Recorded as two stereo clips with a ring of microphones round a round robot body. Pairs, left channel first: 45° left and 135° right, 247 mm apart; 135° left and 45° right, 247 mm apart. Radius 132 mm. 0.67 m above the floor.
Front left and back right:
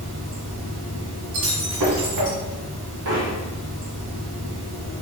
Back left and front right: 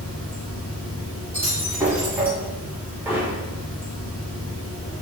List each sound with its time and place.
0.0 s running water: 140° right, 1.7 m
1.3 s breaking glass: 125° right, 1.9 m
3.0 s hammering: 125° right, 1.3 m